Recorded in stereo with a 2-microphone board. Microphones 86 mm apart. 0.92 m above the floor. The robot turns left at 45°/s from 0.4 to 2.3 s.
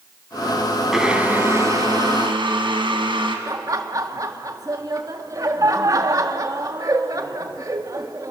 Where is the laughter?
40° right (ahead or behind), 1.7 m.